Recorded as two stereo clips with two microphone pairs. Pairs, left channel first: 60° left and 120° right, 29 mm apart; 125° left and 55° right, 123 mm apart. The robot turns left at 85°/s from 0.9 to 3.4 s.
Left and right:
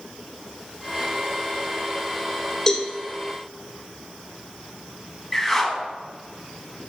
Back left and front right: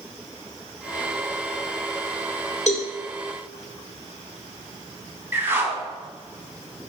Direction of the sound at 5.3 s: 15° right.